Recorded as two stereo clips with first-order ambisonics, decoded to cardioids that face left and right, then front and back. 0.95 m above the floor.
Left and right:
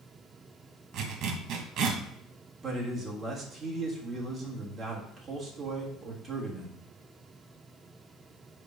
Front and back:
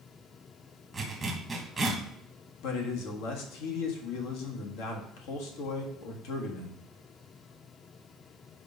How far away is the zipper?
About 1.0 m.